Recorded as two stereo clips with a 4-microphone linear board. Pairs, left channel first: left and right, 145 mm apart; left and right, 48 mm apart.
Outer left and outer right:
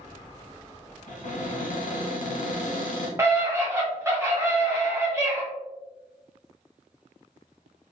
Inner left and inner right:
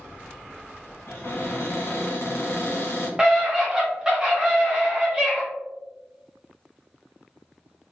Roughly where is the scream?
Centre.